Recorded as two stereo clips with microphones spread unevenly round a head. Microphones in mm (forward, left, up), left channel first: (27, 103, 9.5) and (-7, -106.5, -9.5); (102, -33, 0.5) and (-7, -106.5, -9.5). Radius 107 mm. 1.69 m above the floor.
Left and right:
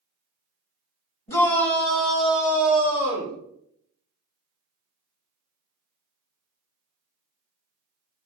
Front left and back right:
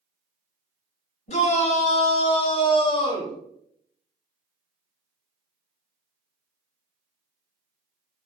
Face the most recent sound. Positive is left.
turn(degrees=-20)